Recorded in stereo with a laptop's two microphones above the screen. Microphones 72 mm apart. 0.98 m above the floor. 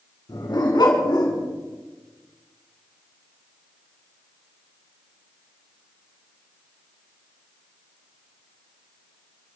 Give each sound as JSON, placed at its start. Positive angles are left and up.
{"t": 0.3, "sound": "a dog barking", "side_deg": 85, "distance_m": 4.5}